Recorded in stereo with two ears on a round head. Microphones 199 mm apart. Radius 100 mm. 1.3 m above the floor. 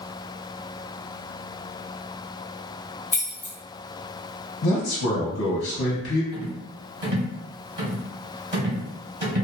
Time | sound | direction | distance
3.1 | keys jangling | 10° left (ahead or behind) | 0.7 m
4.6 | a man speaking | 55° left (ahead or behind) | 0.8 m
6.3 | a rattle | 30° right (ahead or behind) | 1.6 m